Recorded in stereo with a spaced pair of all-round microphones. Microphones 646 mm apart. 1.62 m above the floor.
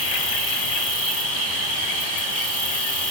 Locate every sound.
0.0 s an insect: 35° left (ahead or behind), 3.5 m